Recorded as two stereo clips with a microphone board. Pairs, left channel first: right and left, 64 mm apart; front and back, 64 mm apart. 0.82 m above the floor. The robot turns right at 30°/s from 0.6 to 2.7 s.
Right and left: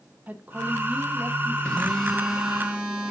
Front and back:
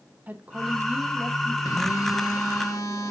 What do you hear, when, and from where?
0.3 s a woman speaking: 135° left, 0.9 m; by 1.6 s 165° left, 0.9 m
1.6 s a phone buzzing: 15° right, 1.4 m; by 3.1 s 20° left, 1.4 m